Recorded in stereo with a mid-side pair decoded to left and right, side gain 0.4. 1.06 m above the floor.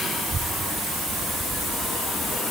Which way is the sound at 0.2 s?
40° right.